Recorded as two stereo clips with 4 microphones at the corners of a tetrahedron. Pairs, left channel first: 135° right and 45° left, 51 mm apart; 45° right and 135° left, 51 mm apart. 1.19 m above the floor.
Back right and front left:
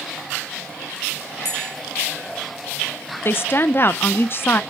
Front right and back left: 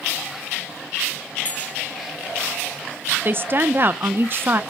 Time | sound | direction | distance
1.4 | a bell | 110° right | 2 m
3.2 | a woman speaking | straight behind | 0.6 m